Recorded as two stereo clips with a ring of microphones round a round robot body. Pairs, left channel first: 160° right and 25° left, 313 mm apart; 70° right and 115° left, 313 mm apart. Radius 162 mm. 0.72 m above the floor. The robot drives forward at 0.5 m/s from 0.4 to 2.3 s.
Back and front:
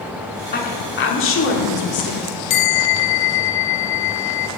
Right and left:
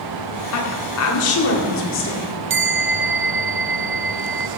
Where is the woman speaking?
100° right, 2 m; by 2.4 s 120° right, 2.5 m.